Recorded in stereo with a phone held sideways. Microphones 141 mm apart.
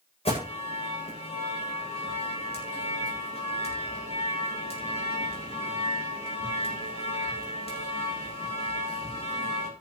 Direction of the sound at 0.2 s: 45° left (ahead or behind).